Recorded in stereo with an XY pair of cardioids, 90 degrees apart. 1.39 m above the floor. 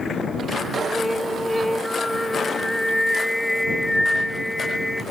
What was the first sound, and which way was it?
Singing, 10° left.